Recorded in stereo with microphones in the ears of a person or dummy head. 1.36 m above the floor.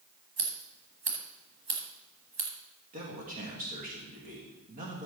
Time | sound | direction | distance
0.4 | scissors | 45° right (ahead or behind) | 1.6 m
2.9 | a man speaking | 40° right (ahead or behind) | 2.5 m